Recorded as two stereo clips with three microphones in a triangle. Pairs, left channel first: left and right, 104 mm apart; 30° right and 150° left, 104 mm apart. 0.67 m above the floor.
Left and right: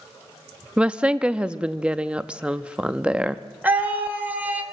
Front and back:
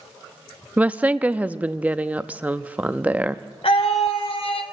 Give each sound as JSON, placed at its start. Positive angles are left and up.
{"t": 0.8, "sound": "a woman speaking", "azimuth_deg": -155, "distance_m": 0.6}
{"t": 3.6, "sound": "a scream", "azimuth_deg": -15, "distance_m": 2.5}